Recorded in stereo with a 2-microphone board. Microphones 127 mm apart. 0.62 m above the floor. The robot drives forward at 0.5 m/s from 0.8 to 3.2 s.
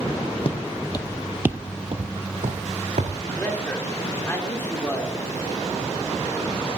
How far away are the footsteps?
About 1.5 m.